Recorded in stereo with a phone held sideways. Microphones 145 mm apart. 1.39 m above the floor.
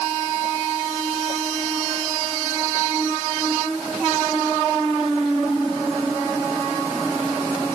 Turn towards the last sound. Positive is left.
No sound to turn to.